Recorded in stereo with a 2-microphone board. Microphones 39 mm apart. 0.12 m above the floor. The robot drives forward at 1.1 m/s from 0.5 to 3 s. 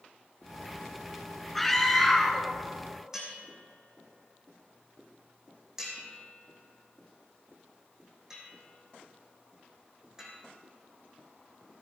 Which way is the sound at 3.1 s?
15° right (ahead or behind).